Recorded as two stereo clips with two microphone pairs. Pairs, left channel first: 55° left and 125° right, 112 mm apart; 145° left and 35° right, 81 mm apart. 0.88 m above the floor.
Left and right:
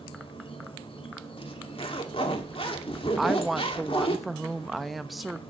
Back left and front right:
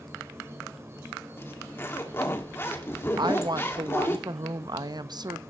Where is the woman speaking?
35° right, 0.7 m.